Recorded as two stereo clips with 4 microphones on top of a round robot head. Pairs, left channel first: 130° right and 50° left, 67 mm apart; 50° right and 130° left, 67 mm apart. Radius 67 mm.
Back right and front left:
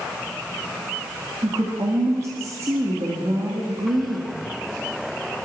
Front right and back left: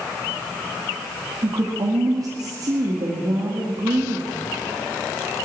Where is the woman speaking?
100° left, 2 m.